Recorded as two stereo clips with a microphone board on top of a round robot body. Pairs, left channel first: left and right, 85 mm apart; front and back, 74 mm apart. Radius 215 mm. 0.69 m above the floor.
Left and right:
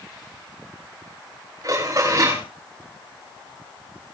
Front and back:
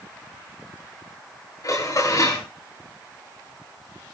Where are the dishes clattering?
40° right, 9 m.